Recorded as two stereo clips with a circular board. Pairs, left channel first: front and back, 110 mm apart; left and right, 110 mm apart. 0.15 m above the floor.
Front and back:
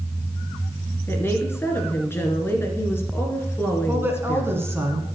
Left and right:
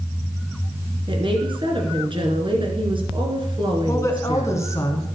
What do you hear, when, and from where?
1.1 s a woman speaking: 65° right, 1.7 m
3.9 s a woman speaking: 130° left, 1.8 m